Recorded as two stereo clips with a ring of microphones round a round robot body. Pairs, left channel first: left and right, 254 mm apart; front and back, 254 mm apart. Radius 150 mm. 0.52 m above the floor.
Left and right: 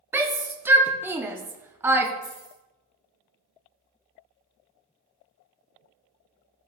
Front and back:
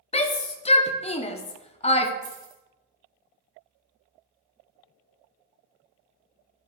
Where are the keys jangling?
165° left, 2 m.